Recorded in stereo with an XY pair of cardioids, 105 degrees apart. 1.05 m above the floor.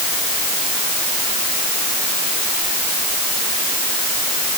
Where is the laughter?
No laughter in this recording.